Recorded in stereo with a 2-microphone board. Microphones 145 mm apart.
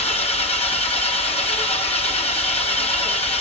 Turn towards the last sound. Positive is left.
turn(degrees=45)  # may be behind; listen again after turning